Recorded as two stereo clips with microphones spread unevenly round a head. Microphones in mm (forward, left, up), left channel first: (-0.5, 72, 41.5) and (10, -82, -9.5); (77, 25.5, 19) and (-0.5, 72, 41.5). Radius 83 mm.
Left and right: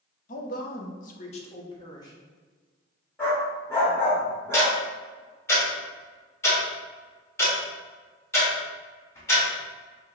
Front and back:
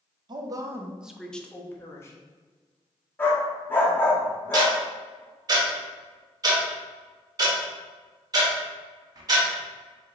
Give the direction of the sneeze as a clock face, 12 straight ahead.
No sneeze in this recording.